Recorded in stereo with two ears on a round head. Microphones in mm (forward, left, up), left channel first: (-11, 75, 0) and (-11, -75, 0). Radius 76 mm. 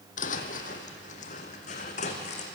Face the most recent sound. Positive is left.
turn(degrees=45)  # may be behind; listen again after turning